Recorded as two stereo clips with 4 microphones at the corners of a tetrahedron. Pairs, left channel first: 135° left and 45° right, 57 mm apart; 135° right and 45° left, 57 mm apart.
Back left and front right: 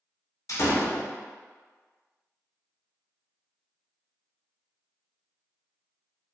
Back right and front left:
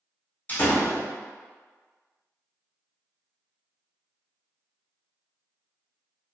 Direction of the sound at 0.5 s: 165° left.